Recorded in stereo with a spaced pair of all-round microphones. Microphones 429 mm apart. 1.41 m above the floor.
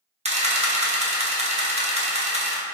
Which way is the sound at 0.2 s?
15° right (ahead or behind).